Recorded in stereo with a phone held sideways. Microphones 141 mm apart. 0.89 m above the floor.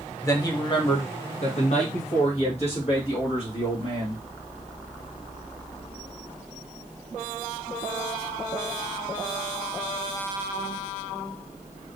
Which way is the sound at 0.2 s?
20° left (ahead or behind).